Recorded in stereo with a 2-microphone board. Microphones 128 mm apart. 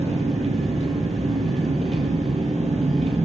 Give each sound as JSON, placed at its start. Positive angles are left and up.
{"t": 0.0, "sound": "an engine running", "side_deg": -60, "distance_m": 0.7}